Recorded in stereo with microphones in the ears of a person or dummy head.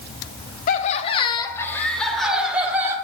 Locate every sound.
0.7 s laughter: 50° left (ahead or behind), 1.1 m; by 3.0 s 10° right (ahead or behind), 1.7 m